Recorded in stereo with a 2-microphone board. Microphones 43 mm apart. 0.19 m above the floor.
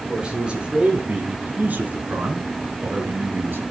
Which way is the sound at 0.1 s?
20° right (ahead or behind).